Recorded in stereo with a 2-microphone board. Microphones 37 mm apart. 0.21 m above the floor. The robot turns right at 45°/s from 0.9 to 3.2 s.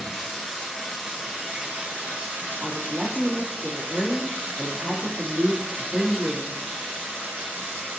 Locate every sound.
0.0 s running water: 175° right, 1.9 m; by 8.0 s 75° right, 1.9 m
2.6 s a woman speaking: 50° right (ahead or behind), 1.5 m; by 6.6 s 35° right (ahead or behind), 1.5 m